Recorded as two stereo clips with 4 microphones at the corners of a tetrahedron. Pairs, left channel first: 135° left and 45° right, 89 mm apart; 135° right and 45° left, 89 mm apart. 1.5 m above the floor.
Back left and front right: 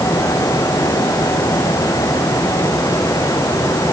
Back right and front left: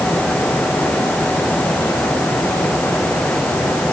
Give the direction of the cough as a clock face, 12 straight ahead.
I don't hear a cough.